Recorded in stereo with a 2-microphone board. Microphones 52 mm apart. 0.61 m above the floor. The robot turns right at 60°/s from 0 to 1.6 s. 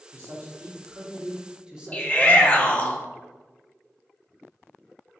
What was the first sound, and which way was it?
A man speaking, 110° right.